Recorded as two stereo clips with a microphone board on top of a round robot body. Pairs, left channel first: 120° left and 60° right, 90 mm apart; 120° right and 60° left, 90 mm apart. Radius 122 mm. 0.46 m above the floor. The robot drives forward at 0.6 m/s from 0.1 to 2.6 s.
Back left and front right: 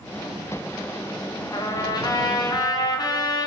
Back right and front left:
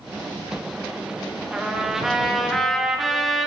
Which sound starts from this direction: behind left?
A trumpet, at 1.5 s.